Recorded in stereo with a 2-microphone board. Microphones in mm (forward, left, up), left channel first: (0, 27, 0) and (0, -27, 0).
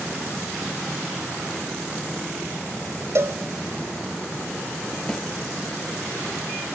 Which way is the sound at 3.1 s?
55° right (ahead or behind).